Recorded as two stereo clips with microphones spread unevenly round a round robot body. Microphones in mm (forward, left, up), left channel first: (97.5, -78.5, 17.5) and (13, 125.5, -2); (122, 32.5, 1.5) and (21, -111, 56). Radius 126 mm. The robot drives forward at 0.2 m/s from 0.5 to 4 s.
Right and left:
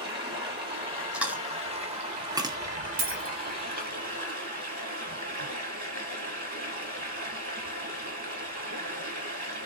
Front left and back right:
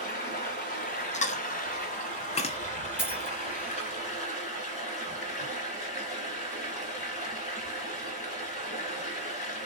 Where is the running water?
50° left, 1.8 m; by 9.7 s 75° left, 1.6 m.